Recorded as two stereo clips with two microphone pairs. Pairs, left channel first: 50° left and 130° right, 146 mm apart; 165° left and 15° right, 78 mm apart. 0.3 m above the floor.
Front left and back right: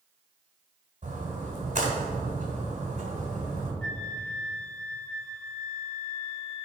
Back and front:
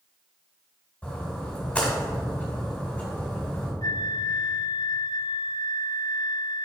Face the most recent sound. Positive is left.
turn(degrees=135)